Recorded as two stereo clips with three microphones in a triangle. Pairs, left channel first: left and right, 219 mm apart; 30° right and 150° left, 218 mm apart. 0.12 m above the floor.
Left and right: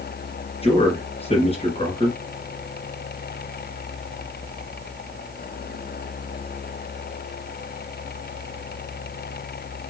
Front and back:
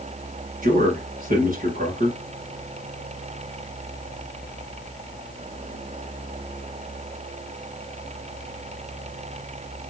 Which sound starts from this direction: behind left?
A man speaking, at 0.6 s.